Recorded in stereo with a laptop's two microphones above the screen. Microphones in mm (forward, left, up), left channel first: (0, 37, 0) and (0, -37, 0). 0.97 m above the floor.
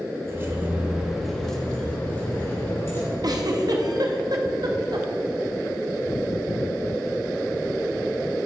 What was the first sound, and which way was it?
Keys jangling, 35° right (ahead or behind).